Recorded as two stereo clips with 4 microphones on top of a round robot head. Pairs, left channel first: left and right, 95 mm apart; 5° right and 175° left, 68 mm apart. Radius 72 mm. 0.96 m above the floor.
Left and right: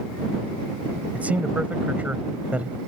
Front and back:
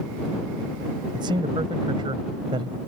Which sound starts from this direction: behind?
A man speaking, at 1.1 s.